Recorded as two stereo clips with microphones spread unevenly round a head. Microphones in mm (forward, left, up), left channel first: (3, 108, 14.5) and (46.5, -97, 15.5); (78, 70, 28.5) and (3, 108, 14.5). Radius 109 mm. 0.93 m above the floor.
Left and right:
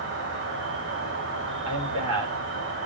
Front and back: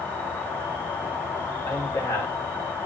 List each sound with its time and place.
0.0 s an insect: 110° right, 3 m
1.6 s a man speaking: 90° right, 4 m